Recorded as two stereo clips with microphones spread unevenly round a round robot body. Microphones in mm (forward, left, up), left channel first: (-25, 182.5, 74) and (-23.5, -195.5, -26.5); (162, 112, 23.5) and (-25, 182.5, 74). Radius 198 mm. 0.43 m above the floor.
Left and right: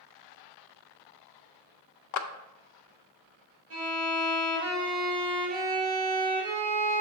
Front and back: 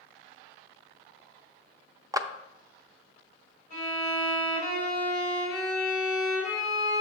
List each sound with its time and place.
2.1 s a clap: 70° left, 0.5 m
3.7 s a violin: 130° right, 3 m